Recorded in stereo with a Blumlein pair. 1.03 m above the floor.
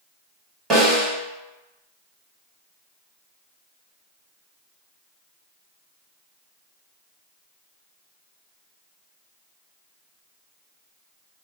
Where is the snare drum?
20° right, 1.5 m.